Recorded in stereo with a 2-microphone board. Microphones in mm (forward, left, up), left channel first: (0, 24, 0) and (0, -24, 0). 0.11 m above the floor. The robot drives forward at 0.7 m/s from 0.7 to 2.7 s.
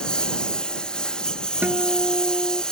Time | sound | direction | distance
0.0 | a lawn mower | 15° left (ahead or behind) | ?
1.6 | a guitar | 35° right (ahead or behind) | ?